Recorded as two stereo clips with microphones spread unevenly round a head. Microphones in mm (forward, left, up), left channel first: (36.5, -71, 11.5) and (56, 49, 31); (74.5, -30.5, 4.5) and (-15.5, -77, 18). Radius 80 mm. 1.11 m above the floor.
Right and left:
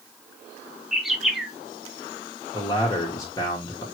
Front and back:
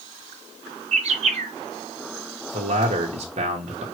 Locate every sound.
0.9 s a bird: 170° left, 0.6 m
2.5 s a man speaking: 155° right, 1.1 m